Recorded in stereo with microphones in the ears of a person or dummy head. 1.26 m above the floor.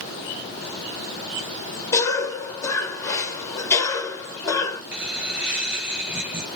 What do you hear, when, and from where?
1.9 s a cough: 15° left (ahead or behind), 1.5 m
4.9 s laughter: 5° right (ahead or behind), 1.0 m